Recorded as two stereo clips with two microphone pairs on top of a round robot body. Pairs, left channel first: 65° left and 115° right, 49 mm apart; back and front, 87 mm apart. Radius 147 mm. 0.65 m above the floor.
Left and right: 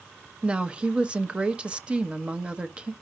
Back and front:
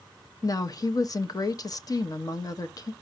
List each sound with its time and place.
0.4 s a woman speaking: 165° right, 1.0 m